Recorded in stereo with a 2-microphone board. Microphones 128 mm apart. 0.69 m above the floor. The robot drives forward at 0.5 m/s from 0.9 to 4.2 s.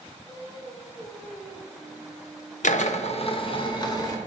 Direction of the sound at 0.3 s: 25° left (ahead or behind).